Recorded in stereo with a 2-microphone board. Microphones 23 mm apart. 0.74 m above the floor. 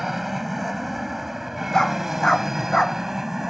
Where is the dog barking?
30° left (ahead or behind).